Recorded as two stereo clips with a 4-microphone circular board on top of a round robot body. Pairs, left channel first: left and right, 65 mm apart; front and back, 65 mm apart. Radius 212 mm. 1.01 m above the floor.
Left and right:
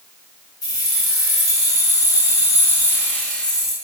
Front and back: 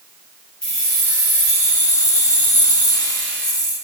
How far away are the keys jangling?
About 3.5 m.